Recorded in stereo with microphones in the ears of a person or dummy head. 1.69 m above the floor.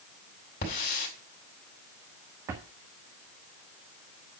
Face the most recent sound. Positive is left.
turn(degrees=-15)  # may be behind; listen again after turning